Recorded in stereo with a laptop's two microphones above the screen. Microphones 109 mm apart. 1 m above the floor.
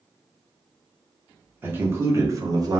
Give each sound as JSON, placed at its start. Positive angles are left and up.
{"t": 1.6, "sound": "a man speaking", "side_deg": -20, "distance_m": 1.1}